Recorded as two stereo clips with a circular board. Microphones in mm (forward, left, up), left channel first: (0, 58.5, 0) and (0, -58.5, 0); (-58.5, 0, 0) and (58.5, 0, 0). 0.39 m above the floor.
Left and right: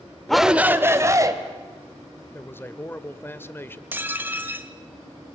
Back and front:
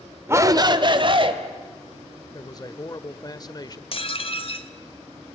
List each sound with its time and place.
0.3 s a shout: 10° left, 0.9 m; by 1.3 s 35° right, 1.7 m
2.3 s a man speaking: 150° left, 1.0 m
3.9 s dishes clattering: 160° right, 1.0 m